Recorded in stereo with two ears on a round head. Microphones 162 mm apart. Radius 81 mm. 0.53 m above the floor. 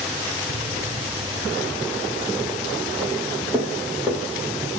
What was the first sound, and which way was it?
Footsteps, 65° right (ahead or behind).